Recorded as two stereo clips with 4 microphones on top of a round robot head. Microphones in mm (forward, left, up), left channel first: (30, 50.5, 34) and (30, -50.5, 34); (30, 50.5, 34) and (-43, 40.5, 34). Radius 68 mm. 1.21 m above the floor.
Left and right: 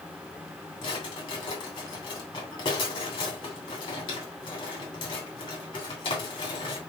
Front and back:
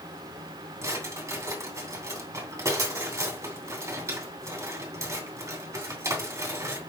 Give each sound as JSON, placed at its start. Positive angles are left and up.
{"t": 0.8, "sound": "a drawer", "azimuth_deg": 140, "distance_m": 2.5}